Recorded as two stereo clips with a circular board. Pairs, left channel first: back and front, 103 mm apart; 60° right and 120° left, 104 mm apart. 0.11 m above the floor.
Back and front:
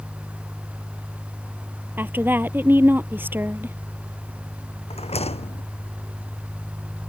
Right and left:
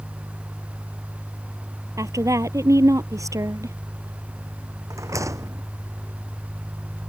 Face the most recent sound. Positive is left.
turn(degrees=180)